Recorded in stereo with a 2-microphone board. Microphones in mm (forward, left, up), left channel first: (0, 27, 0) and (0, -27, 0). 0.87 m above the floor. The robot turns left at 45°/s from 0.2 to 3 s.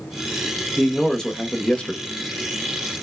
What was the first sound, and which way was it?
A man speaking, centre (ahead or behind).